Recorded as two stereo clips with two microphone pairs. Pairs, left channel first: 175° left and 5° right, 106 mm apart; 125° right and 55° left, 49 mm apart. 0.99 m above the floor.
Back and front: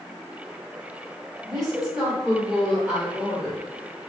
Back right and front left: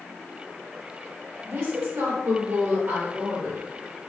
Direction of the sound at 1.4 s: 80° left.